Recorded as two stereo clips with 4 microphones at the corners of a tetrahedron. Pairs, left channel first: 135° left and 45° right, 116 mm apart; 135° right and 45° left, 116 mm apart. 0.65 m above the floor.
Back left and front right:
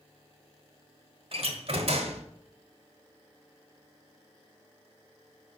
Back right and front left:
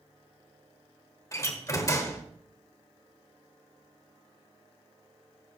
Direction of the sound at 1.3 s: 75° right.